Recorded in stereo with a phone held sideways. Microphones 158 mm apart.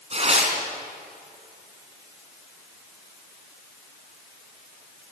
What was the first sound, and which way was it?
Tearing paper, 40° right (ahead or behind).